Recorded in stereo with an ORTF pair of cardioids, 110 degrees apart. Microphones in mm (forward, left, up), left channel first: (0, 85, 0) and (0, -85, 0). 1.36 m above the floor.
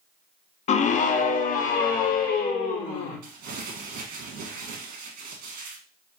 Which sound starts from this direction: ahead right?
Crumpling, at 3.2 s.